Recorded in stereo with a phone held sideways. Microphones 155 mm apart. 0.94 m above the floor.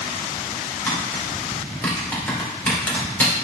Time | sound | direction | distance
0.9 | tapping | 10° left (ahead or behind) | 2 m